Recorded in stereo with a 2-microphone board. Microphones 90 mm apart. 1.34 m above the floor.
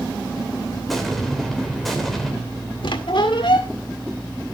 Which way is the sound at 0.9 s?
Centre (ahead or behind).